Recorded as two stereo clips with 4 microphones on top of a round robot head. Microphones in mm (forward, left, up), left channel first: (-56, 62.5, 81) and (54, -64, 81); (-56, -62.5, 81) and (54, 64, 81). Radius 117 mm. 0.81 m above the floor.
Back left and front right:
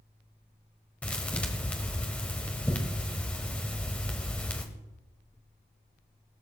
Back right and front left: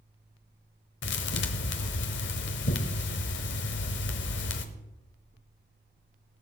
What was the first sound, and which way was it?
A thud, 145° right.